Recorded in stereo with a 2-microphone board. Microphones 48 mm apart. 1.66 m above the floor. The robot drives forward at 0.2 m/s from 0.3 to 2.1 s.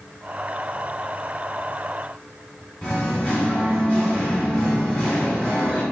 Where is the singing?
25° left (ahead or behind), 1.3 m.